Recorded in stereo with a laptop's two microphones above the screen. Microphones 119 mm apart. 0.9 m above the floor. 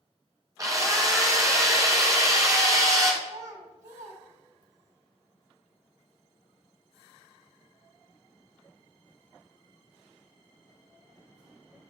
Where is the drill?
30° right (ahead or behind), 1.1 m.